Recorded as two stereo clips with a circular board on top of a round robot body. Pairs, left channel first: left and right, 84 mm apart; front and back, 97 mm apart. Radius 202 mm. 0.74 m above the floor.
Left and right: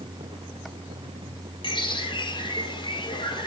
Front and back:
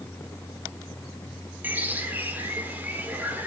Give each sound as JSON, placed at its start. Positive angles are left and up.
{"t": 1.6, "sound": "a bird", "azimuth_deg": 105, "distance_m": 3.5}